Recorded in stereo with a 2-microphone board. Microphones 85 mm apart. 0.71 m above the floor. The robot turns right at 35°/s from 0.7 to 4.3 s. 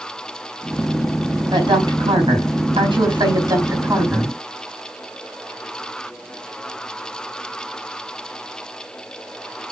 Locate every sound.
1.5 s a woman speaking: 120° right, 4.5 m; by 4.4 s 20° right, 4.5 m